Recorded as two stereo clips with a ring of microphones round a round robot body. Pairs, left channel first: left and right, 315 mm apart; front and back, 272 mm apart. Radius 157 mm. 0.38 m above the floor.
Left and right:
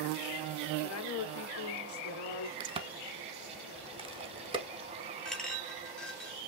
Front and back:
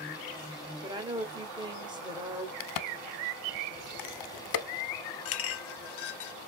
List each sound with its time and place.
0.8 s a woman speaking: 110° left, 1.1 m
2.6 s a crack: 15° right, 0.6 m
5.2 s a clink: 5° left, 0.5 m